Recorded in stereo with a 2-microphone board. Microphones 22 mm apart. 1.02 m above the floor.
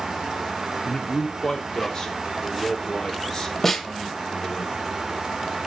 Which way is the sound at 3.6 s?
15° left (ahead or behind).